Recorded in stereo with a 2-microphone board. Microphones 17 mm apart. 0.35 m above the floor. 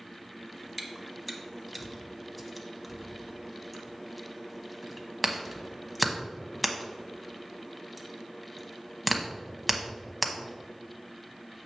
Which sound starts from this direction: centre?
Chewing, at 0.8 s.